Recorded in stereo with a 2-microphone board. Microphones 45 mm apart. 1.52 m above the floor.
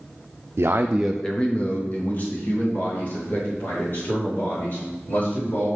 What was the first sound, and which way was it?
A man speaking, 65° right (ahead or behind).